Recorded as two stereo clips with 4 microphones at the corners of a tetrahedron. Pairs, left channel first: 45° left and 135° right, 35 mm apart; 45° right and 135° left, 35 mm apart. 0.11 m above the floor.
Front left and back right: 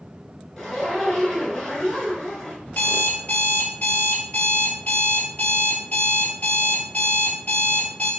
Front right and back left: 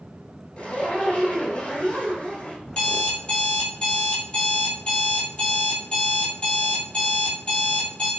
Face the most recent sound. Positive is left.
turn(degrees=15)